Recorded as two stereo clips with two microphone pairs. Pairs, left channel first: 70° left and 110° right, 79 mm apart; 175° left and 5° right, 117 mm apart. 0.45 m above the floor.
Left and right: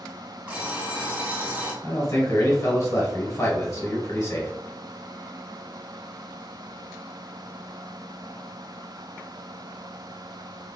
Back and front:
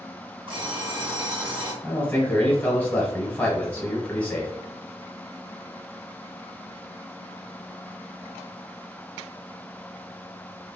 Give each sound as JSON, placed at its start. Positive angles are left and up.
{"t": 0.5, "sound": "an alarm clock", "azimuth_deg": -40, "distance_m": 1.1}
{"t": 1.8, "sound": "a man speaking", "azimuth_deg": 100, "distance_m": 1.2}